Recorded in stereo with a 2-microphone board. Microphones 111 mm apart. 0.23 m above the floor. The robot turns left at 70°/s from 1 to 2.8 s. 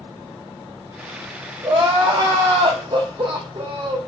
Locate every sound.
1.6 s crying: 40° right, 4 m; by 4.0 s 120° right, 4 m